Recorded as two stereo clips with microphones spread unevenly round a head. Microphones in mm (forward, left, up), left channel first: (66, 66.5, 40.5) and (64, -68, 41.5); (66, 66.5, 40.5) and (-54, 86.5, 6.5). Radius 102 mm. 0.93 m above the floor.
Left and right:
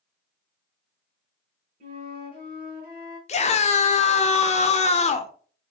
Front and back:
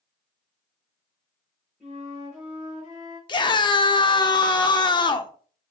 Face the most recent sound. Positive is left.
turn(degrees=50)